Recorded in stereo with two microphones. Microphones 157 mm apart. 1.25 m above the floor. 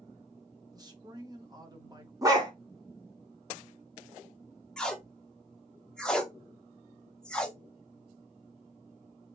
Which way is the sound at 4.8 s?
5° left (ahead or behind).